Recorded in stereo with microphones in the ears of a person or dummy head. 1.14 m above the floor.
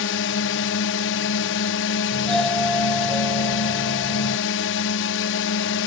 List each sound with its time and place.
0.0 s a drone: 55° left (ahead or behind)
2.1 s a doorbell: 5° left (ahead or behind)